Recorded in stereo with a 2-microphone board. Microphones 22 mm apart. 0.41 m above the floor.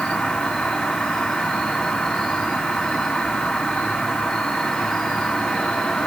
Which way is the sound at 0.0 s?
50° left (ahead or behind).